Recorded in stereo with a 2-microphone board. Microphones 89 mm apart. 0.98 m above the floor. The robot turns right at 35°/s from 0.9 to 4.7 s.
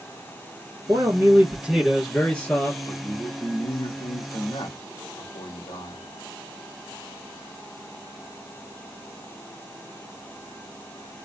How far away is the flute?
I don't hear a flute.